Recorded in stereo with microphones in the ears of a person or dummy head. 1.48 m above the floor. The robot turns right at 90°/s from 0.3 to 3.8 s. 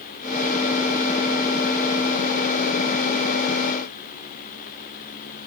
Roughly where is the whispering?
No whispering in this recording.